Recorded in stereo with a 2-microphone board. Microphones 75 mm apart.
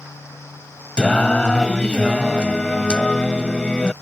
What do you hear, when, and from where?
1.0 s singing: 10° left (ahead or behind)